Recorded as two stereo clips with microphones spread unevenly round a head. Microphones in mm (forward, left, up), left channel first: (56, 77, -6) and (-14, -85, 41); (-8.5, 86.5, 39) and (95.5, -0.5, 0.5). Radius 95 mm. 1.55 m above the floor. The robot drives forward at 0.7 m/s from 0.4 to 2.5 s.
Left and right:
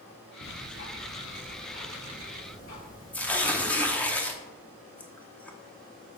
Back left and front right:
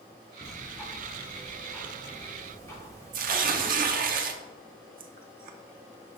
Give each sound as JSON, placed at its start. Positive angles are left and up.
{"t": 0.4, "sound": "ticking", "azimuth_deg": 45, "distance_m": 3.5}
{"t": 3.1, "sound": "tearing paper", "azimuth_deg": -20, "distance_m": 0.7}